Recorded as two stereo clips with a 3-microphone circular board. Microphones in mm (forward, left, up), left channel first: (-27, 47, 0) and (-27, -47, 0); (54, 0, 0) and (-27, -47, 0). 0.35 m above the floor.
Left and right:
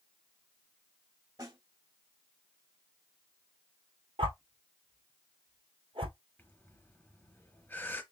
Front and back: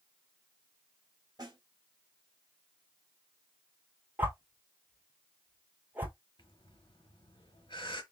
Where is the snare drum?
120° right, 2.0 m.